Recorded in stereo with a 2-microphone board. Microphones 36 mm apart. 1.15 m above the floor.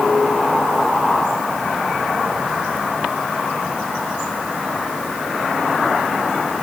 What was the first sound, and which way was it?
Only background noise.